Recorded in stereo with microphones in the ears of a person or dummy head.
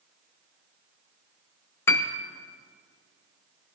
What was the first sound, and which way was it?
A piano, 10° left (ahead or behind).